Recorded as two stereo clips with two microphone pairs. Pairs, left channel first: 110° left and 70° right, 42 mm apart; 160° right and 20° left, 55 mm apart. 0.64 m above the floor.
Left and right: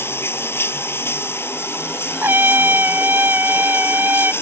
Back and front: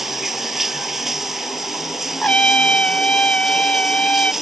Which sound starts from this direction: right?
A trumpet, at 2.2 s.